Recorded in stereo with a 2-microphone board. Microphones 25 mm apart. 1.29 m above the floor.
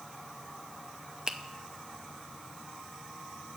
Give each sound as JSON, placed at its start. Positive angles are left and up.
{"t": 1.3, "sound": "a finger snap", "side_deg": -25, "distance_m": 0.6}